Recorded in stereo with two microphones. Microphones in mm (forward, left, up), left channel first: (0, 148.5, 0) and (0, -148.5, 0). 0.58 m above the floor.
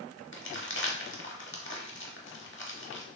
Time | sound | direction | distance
0.3 | crumpling | 45° left (ahead or behind) | 0.7 m